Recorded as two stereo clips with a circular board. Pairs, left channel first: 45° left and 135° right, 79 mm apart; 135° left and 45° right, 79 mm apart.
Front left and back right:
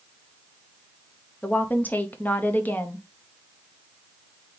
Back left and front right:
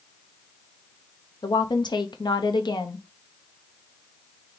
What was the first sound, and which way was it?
A woman speaking, 115° left.